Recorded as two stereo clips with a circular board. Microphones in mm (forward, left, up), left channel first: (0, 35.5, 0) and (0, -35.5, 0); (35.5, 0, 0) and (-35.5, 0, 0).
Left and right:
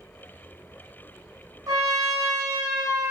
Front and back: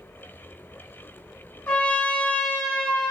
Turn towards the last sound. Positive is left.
turn(degrees=-65)